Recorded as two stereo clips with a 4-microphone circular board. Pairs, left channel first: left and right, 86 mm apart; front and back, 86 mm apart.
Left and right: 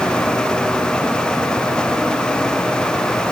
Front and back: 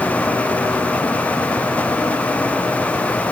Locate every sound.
Only background noise.